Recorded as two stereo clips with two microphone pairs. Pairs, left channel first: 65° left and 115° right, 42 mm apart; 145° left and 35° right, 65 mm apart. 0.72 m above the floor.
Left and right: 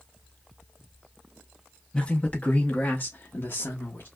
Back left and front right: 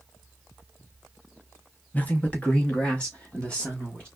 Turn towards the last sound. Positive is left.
turn(degrees=70)